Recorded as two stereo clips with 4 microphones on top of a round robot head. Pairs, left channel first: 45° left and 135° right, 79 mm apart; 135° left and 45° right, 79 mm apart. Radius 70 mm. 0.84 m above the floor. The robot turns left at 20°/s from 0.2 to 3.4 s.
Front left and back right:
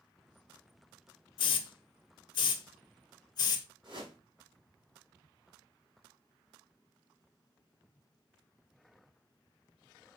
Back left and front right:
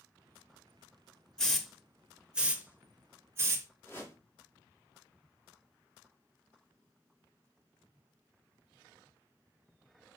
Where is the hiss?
55° left, 0.7 m; by 3.7 s 15° left, 0.7 m.